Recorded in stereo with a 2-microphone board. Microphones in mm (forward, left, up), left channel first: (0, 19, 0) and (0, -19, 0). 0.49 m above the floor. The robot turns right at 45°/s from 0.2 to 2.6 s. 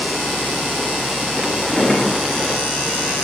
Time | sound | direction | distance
1.6 | a drawer | 25° left (ahead or behind) | 1.7 m